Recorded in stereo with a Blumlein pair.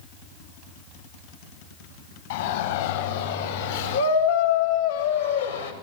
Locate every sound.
2.3 s a shout: 55° left, 8 m; by 5.7 s 80° left, 5 m